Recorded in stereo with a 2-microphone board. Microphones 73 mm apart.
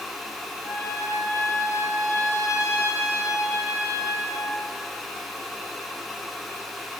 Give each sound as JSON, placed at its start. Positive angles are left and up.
{"t": 0.6, "sound": "a trumpet", "side_deg": 40, "distance_m": 2.0}